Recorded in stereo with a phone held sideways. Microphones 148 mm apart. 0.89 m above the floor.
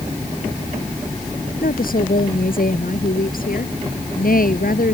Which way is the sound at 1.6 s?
75° left (ahead or behind).